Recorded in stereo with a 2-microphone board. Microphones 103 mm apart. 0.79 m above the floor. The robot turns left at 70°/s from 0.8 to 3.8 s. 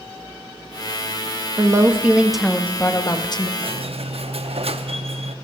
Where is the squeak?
60° right (ahead or behind), 0.6 m; by 5.3 s 70° right (ahead or behind), 0.6 m.